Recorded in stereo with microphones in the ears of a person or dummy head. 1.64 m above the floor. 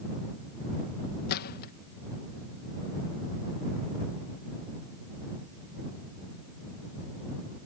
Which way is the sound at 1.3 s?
55° left (ahead or behind).